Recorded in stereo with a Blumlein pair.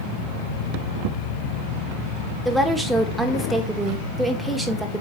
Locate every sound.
2.5 s a woman speaking: straight ahead, 1.3 m